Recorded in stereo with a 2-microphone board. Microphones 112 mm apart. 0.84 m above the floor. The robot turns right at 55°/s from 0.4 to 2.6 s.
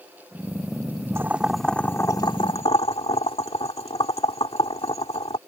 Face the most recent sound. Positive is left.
turn(degrees=55)  # may be behind; listen again after turning